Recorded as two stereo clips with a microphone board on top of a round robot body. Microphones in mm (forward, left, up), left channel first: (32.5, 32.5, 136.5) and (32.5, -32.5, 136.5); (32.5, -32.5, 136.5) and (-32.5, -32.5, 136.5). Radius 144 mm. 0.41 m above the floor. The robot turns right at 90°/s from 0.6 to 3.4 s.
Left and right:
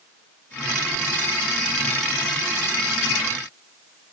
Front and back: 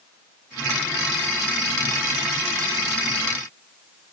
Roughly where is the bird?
No bird in this recording.